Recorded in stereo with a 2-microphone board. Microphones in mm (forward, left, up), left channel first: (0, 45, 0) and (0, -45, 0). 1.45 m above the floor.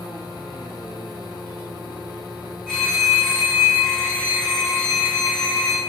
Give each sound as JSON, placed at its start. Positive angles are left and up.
{"t": 2.7, "sound": "a phone ringing", "side_deg": 0, "distance_m": 1.5}